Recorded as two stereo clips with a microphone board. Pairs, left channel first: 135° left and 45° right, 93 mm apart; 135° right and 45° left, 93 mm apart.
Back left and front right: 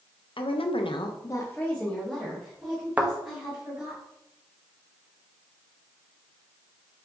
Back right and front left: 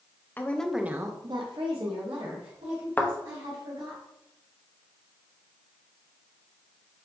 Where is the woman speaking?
155° left, 0.6 m; by 4.0 s 35° left, 2.5 m.